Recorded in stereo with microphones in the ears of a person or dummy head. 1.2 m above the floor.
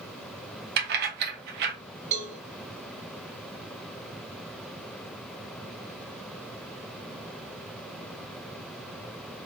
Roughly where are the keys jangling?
Right.